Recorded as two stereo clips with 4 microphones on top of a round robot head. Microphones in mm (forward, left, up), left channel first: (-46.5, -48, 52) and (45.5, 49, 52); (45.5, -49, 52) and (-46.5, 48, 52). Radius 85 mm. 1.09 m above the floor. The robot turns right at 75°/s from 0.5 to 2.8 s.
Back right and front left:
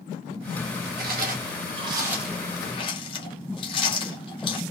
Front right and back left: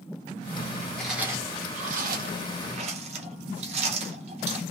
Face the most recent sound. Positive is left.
turn(degrees=175)